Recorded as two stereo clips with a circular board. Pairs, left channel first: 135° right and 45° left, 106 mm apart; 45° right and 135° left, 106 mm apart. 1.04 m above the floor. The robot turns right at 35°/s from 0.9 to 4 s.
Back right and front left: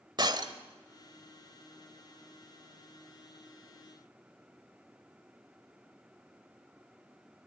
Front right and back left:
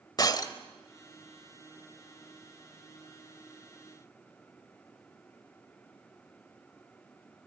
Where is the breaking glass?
5° left, 1.4 m.